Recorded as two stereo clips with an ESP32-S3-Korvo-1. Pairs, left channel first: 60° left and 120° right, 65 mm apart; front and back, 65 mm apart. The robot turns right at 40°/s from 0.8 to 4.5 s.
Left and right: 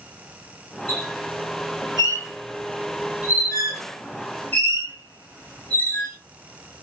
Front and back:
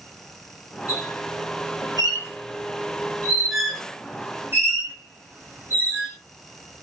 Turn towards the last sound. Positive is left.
turn(degrees=125)